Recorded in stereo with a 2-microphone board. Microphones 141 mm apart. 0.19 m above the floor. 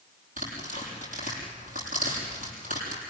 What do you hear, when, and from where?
0.4 s tearing paper: 75° right (ahead or behind), 6.5 m